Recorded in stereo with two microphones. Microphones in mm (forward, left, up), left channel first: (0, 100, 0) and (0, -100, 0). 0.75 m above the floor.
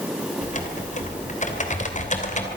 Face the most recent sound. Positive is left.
turn(degrees=40)  # may be behind; listen again after turning